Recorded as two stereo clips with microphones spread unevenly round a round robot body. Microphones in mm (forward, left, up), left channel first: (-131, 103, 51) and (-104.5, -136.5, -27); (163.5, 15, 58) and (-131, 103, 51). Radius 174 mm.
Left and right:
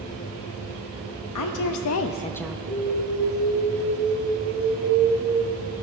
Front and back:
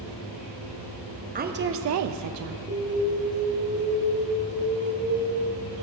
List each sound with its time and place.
1.4 s a woman speaking: 100° left, 0.9 m; by 2.6 s 150° right, 0.6 m
2.7 s an alarm: 130° right, 3.5 m